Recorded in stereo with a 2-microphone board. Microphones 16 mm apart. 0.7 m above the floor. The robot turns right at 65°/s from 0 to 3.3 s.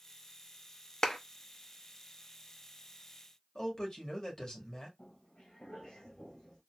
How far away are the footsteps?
About 1.8 m.